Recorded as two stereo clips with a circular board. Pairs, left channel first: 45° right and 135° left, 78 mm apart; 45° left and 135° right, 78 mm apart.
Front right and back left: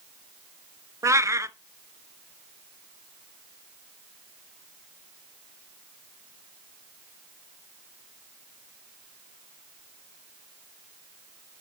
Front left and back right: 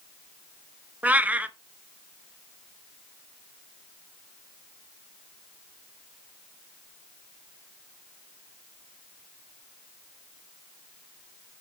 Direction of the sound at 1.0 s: 160° left.